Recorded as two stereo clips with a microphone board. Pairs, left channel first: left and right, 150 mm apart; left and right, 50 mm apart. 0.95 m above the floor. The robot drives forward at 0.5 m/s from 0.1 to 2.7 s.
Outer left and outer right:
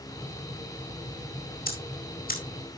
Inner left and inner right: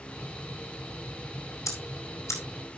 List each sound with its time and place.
1.7 s ticking: 80° left, 2.5 m; by 2.4 s 70° left (ahead or behind), 2.5 m